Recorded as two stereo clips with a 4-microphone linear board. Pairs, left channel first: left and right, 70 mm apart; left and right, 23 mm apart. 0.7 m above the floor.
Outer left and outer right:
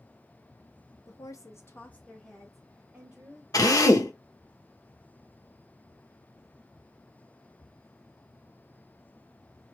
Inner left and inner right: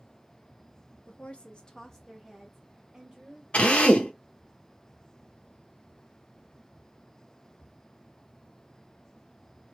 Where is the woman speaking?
60° left (ahead or behind), 0.8 m; by 3.4 s 15° right (ahead or behind), 1.7 m.